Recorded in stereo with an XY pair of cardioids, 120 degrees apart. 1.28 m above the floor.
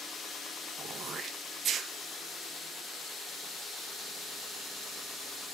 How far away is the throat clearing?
About 1.5 m.